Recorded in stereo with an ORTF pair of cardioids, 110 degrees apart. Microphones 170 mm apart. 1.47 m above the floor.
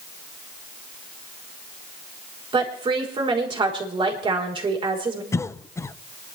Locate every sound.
2.5 s a woman speaking: 30° right, 4 m
5.3 s a cough: 15° left, 0.8 m